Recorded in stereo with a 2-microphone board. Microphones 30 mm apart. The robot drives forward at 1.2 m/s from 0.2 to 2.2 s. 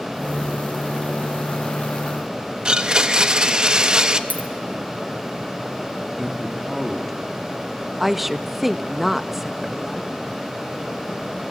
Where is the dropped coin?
75° right (ahead or behind), 2.5 m.